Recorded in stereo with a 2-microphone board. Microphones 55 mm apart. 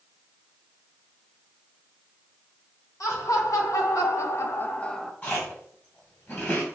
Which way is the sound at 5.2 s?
30° left (ahead or behind).